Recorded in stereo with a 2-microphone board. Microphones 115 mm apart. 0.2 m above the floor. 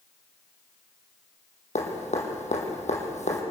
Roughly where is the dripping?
Left.